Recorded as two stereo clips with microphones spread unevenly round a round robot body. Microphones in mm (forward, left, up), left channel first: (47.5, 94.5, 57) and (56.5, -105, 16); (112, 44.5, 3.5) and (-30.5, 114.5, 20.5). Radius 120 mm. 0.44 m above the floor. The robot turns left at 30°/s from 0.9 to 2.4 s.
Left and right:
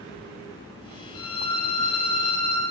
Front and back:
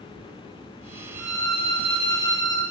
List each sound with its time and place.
1.1 s a violin: 115° left, 5.5 m; by 2.6 s 80° left, 5.5 m